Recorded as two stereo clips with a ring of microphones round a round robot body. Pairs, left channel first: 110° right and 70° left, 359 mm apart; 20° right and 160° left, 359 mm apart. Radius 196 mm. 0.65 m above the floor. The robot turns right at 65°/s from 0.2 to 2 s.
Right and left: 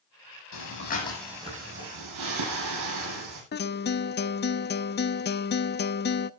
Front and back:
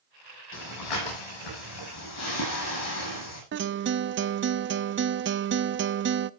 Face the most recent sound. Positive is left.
turn(degrees=-160)